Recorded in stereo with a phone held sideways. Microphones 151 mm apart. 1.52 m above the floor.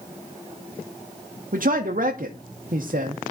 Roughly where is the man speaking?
Right.